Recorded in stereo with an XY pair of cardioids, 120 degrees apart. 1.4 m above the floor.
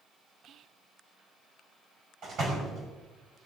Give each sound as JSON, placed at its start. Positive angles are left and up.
{"t": 0.4, "sound": "whispering", "azimuth_deg": -55, "distance_m": 0.5}
{"t": 2.2, "sound": "a door slam", "azimuth_deg": -50, "distance_m": 5.0}